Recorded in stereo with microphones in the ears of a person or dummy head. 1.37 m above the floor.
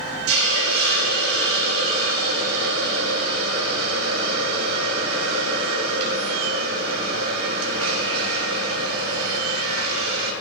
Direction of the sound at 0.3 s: 80° right.